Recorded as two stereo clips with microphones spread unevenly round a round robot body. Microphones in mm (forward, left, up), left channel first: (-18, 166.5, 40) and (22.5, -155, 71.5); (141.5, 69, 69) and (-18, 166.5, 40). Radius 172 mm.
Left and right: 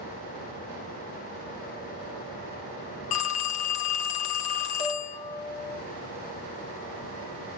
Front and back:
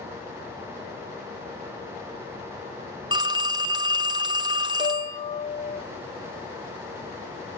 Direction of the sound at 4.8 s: 35° left.